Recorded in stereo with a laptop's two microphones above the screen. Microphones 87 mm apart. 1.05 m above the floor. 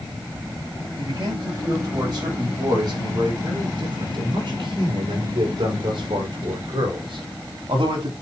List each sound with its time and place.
1.0 s a man speaking: 50° right (ahead or behind), 6 m; by 8.1 s 75° right (ahead or behind), 3 m